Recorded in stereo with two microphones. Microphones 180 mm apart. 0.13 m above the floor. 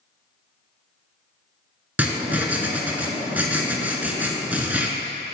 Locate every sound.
2.0 s writing: 10° right (ahead or behind), 0.7 m